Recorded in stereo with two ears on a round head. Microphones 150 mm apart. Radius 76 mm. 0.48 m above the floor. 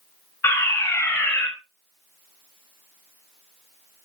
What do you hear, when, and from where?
0.4 s a fire alarm: 10° left (ahead or behind), 4.5 m